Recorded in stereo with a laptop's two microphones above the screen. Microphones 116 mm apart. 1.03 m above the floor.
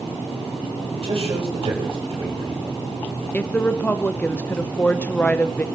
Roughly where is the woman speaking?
Centre.